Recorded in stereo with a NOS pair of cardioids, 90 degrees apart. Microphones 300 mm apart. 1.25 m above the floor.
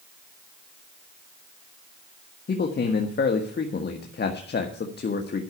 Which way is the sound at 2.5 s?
35° left.